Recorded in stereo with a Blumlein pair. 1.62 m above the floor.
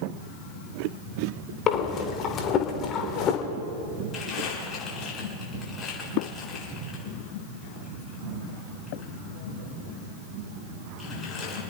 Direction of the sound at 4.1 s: 20° left.